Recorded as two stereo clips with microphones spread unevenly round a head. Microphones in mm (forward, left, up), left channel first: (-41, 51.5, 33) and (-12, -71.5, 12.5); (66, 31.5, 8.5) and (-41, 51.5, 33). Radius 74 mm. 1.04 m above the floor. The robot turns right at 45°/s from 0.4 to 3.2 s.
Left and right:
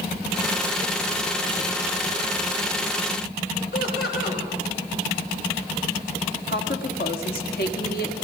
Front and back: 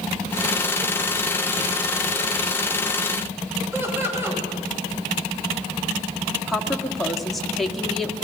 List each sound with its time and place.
3.7 s laughter: 100° left, 7 m
6.5 s a woman speaking: 80° left, 1.9 m